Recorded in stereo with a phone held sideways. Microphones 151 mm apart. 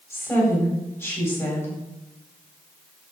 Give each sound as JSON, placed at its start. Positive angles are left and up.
{"t": 0.1, "sound": "a woman speaking", "side_deg": 15, "distance_m": 8.5}